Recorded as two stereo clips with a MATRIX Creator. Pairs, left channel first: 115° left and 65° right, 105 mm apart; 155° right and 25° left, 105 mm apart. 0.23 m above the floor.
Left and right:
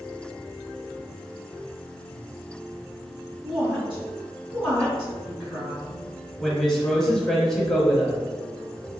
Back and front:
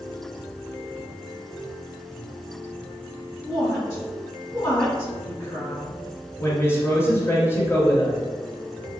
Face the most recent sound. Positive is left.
turn(degrees=-170)